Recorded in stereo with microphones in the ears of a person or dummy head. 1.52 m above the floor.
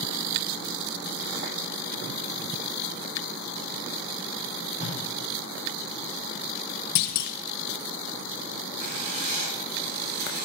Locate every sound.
4.8 s tape being pulled: 30° right (ahead or behind), 5.5 m
7.0 s a clunk: 55° left (ahead or behind), 0.8 m
8.8 s writing: 55° right (ahead or behind), 8 m